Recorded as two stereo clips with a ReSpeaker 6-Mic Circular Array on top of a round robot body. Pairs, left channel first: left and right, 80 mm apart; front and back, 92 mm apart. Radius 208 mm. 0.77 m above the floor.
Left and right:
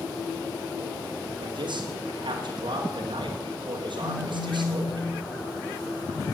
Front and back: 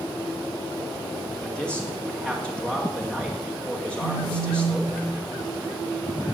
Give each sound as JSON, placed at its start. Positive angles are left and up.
{"t": 1.4, "sound": "a man speaking", "azimuth_deg": -80, "distance_m": 2.0}
{"t": 4.0, "sound": "a phone buzzing", "azimuth_deg": 0, "distance_m": 8.0}